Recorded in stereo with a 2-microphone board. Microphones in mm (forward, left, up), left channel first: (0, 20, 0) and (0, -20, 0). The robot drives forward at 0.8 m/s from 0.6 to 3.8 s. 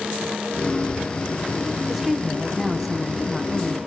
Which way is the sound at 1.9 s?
5° right (ahead or behind).